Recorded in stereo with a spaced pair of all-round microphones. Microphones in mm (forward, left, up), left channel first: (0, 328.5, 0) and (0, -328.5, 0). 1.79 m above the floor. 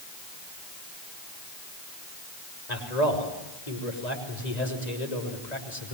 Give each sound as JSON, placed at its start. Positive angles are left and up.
{"t": 2.7, "sound": "a man speaking", "side_deg": 85, "distance_m": 6.5}